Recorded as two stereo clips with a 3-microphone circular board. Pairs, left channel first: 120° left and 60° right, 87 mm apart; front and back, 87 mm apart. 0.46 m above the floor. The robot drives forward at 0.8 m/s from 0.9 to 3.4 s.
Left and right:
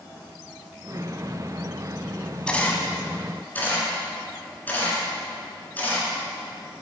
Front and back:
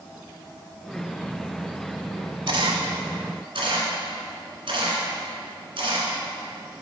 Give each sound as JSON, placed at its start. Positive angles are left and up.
{"t": 2.5, "sound": "a camera shutter", "azimuth_deg": -160, "distance_m": 0.9}